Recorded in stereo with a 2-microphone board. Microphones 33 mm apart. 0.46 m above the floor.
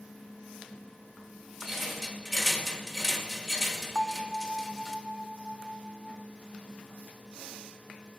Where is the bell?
Centre (ahead or behind), 0.7 m.